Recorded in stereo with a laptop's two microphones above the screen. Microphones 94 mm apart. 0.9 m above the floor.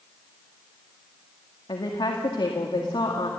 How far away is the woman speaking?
About 2 m.